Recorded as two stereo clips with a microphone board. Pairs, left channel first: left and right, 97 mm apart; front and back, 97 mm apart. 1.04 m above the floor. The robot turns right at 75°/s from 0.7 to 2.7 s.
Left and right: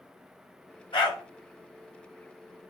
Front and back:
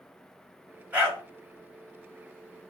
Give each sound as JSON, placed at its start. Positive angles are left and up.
{"t": 0.9, "sound": "a dog barking", "azimuth_deg": 105, "distance_m": 1.7}